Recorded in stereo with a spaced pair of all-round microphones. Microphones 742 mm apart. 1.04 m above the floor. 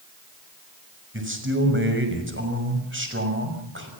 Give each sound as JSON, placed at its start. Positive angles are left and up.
{"t": 1.1, "sound": "a man speaking", "side_deg": -15, "distance_m": 5.5}